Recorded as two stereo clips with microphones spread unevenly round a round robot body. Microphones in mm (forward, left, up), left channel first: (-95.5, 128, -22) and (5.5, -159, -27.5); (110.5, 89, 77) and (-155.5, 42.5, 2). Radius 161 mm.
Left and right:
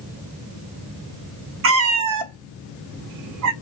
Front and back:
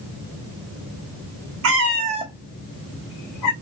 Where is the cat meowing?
120° right, 0.7 m; by 3.5 s 25° right, 0.8 m.